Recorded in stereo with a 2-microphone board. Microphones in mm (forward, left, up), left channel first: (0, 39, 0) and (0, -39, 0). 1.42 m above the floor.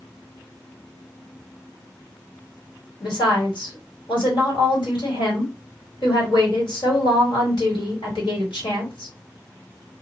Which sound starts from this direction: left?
A woman speaking, at 3.0 s.